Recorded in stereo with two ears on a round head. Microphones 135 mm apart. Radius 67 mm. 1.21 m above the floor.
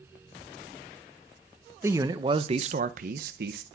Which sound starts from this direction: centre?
A man speaking, at 1.8 s.